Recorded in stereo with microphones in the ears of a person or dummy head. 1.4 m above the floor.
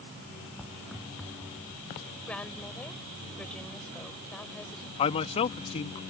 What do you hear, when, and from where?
0.6 s footsteps: centre (ahead or behind); by 1.8 s 5° left (ahead or behind)
2.3 s a woman speaking: 10° left (ahead or behind)
5.0 s a man speaking: 35° left (ahead or behind)